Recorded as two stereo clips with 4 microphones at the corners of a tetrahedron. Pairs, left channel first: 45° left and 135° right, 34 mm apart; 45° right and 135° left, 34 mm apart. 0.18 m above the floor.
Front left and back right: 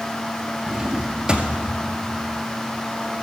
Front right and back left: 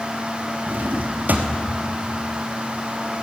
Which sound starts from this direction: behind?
A drawer, at 0.7 s.